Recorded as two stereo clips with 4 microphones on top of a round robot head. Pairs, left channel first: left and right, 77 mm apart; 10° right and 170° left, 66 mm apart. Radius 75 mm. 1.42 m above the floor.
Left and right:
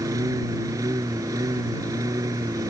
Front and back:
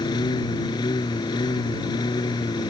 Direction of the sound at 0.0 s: 35° right.